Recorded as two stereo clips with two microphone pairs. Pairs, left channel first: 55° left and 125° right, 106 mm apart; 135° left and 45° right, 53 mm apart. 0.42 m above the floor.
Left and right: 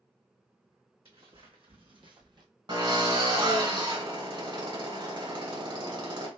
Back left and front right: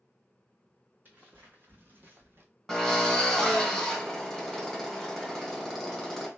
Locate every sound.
1.1 s footsteps: 100° right, 1.9 m; by 2.5 s 85° right, 1.2 m
2.7 s a drill: 140° right, 2 m